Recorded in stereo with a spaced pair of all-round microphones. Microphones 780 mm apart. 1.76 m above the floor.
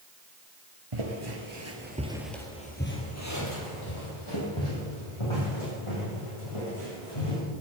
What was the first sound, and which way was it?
Footsteps, 40° right (ahead or behind).